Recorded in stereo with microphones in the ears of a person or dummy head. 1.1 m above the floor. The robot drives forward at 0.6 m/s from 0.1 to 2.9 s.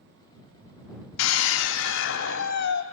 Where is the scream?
85° left, 2 m; by 2.8 s 60° left (ahead or behind), 2.5 m.